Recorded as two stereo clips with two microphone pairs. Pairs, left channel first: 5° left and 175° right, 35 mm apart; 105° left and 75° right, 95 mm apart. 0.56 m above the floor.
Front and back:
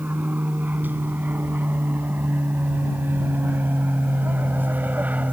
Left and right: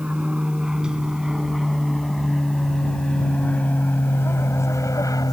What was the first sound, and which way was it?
An aircraft, 150° right.